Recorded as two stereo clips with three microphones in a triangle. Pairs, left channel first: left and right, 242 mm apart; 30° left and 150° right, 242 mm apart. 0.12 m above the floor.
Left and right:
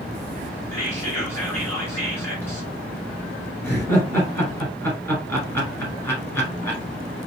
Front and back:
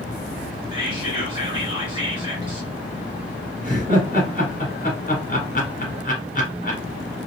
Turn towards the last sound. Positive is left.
turn(degrees=15)